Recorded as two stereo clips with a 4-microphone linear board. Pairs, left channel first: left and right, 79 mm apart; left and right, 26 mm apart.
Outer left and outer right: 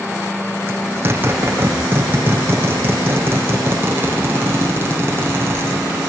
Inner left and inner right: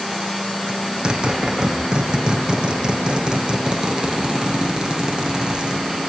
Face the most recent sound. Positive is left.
turn(degrees=-30)  # may be behind; listen again after turning